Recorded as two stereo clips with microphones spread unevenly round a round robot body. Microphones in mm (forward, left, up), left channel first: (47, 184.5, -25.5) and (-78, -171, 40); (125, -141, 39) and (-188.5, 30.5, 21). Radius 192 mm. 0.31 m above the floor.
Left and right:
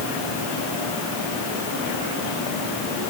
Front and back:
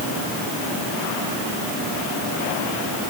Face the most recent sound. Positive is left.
No sound to turn to.